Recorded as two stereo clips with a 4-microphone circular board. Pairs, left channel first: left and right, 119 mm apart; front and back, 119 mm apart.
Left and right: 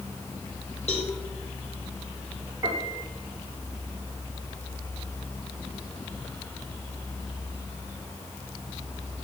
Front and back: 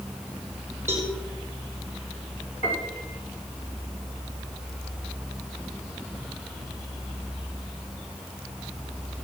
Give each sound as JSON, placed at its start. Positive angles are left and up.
{"t": 0.9, "sound": "a cowbell", "azimuth_deg": 110, "distance_m": 6.0}
{"t": 2.6, "sound": "a piano", "azimuth_deg": -25, "distance_m": 4.5}